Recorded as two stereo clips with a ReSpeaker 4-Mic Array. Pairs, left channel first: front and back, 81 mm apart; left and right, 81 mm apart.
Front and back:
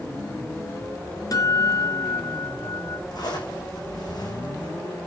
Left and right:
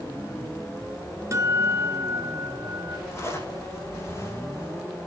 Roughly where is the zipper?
Ahead left.